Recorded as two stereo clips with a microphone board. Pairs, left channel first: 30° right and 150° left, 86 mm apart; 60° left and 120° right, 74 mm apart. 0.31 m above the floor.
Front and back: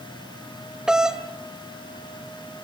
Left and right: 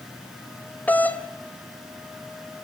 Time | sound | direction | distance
0.9 | a doorbell | 80° left | 2 m